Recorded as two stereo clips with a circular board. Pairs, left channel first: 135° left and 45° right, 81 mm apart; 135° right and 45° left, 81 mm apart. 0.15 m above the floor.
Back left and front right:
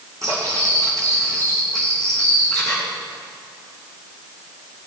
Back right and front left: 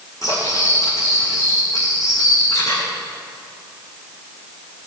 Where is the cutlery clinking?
90° right, 5 m.